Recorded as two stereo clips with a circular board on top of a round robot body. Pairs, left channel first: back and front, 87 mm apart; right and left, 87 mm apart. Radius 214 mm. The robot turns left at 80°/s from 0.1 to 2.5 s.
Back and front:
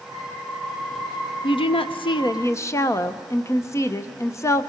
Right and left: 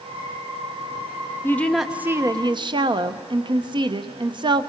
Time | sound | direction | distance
1.4 | a woman speaking | 155° right | 0.8 m